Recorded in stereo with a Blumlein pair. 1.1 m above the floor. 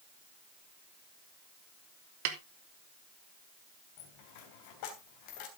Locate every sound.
2.2 s a snare drum: 50° right, 1.5 m
4.0 s a dropped coin: 45° left, 3 m